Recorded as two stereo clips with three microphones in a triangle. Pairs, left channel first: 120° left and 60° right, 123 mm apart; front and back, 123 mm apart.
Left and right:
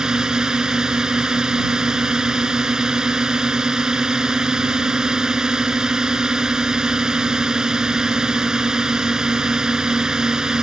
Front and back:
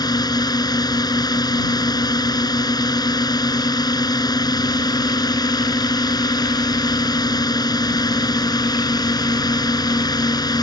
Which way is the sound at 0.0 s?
20° left.